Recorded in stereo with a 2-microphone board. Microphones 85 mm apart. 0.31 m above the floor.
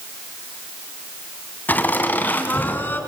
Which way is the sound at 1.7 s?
20° left (ahead or behind).